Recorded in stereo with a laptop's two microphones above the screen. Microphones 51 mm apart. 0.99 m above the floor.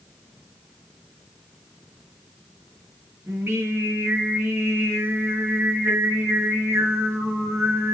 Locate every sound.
3.3 s singing: 55° right (ahead or behind), 3.5 m